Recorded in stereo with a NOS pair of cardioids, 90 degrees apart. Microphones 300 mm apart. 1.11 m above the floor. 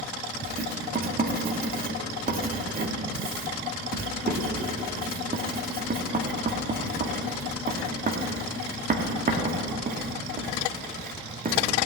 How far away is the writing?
About 1.9 m.